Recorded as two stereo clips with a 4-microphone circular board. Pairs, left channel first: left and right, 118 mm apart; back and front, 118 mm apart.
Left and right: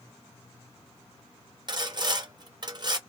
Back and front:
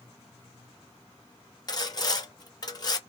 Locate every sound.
1.7 s sawing: 135° right, 0.5 m